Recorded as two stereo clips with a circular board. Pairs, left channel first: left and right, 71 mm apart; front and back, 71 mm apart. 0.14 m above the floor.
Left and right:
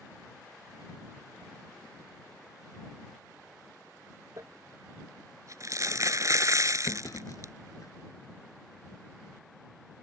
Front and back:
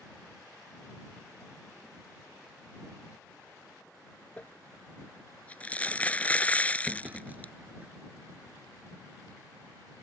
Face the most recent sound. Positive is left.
turn(degrees=115)